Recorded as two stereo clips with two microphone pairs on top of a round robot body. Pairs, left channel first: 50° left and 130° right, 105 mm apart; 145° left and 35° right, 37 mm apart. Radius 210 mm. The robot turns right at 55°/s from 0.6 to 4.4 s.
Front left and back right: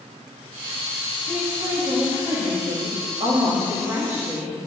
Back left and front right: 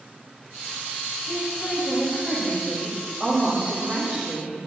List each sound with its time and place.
1.3 s a woman speaking: 140° left, 6 m; by 4.6 s 45° right, 6 m